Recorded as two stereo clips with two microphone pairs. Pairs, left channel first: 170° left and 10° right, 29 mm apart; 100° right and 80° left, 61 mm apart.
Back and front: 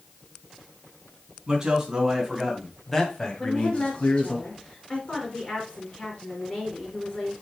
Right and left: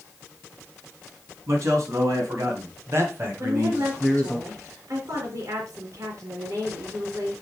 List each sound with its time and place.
1.5 s a man speaking: 50° left, 3.5 m; by 4.4 s 155° left, 2.5 m
3.4 s a woman speaking: 110° left, 3 m